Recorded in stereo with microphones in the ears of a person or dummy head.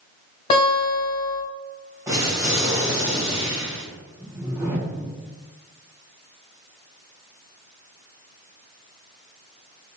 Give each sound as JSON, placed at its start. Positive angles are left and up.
{"t": 0.5, "sound": "a guitar", "side_deg": 30, "distance_m": 1.4}
{"t": 2.1, "sound": "an explosion", "side_deg": -5, "distance_m": 1.5}
{"t": 4.2, "sound": "a whoosh", "side_deg": -10, "distance_m": 0.9}